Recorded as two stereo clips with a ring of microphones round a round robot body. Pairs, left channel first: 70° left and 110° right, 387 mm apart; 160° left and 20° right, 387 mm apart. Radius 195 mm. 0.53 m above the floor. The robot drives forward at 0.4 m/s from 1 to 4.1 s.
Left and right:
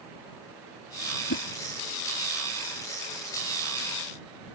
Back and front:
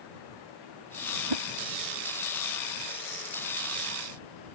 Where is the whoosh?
5° left.